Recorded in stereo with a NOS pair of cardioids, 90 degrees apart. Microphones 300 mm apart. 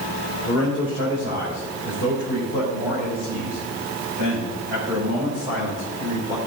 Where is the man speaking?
55° left, 3 m; by 6.4 s 65° left, 6 m.